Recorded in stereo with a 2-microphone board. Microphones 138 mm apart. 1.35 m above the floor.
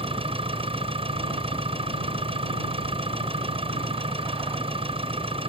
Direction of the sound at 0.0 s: 45° right (ahead or behind).